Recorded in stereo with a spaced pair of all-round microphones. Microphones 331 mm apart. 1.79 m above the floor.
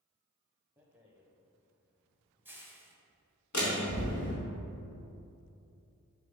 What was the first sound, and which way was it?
A rattle, 5° right (ahead or behind).